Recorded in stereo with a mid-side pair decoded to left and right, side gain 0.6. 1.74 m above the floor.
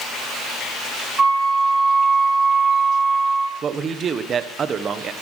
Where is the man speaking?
40° right, 1.6 m.